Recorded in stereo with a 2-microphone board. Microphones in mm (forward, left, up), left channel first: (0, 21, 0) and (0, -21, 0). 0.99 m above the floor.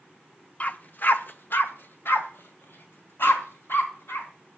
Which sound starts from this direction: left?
A dog barking, at 0.6 s.